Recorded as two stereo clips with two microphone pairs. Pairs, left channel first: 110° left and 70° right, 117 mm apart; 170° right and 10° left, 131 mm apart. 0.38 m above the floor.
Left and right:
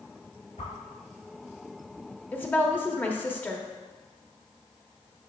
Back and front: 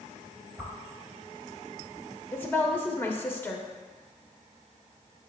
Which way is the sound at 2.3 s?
155° left.